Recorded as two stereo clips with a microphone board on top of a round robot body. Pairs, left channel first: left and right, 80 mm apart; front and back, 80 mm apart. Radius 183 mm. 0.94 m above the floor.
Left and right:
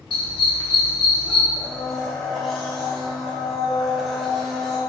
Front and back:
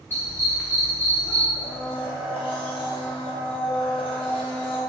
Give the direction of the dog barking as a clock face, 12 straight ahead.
10 o'clock.